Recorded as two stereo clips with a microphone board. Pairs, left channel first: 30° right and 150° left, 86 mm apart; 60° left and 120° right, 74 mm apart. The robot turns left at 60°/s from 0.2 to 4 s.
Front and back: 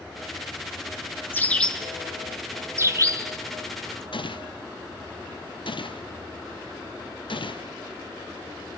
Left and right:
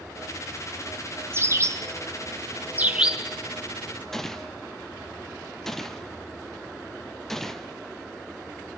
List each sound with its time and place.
1.3 s a bird: 85° right, 1.8 m; by 4.0 s 115° left, 1.8 m
4.1 s a gunshot: 25° right, 1.2 m